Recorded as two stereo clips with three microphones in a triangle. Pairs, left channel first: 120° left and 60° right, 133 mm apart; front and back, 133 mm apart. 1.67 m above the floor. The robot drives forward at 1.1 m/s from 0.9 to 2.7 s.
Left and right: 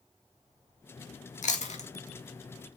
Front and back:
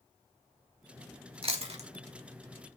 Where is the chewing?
140° left, 1.8 m; by 1.9 s 150° left, 2 m.